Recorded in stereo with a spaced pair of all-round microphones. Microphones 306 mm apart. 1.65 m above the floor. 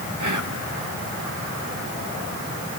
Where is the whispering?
75° right (ahead or behind), 2.0 m.